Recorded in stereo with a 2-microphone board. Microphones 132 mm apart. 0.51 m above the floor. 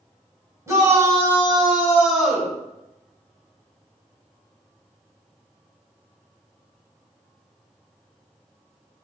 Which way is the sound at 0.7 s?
25° right (ahead or behind).